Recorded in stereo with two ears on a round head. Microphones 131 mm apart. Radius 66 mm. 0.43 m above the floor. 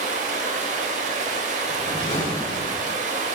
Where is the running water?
55° right (ahead or behind), 0.8 m.